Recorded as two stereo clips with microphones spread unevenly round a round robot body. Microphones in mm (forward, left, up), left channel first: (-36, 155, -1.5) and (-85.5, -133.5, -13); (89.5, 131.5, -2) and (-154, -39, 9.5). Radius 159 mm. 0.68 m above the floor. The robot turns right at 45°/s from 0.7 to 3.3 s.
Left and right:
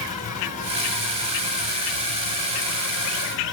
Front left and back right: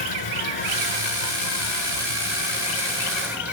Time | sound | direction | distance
0.0 | an insect | 15° left | 5.5 m